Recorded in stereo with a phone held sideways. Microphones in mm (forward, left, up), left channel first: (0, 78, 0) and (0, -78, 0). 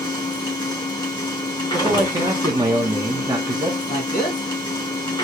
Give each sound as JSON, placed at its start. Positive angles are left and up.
{"t": 0.0, "sound": "a machine running", "side_deg": 30, "distance_m": 1.5}
{"t": 1.7, "sound": "a man speaking", "side_deg": -25, "distance_m": 1.1}
{"t": 3.9, "sound": "a man speaking", "side_deg": 60, "distance_m": 1.9}